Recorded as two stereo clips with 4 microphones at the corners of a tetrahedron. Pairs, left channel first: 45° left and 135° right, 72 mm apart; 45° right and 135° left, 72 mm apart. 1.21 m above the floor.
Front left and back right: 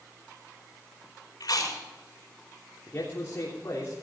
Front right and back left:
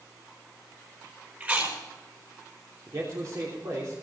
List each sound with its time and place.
1.4 s chewing: 75° left, 4.5 m
2.9 s a man speaking: 100° left, 3.5 m